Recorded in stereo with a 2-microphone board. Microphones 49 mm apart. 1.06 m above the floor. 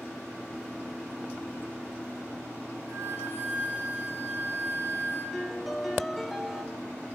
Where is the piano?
Centre (ahead or behind), 0.5 m.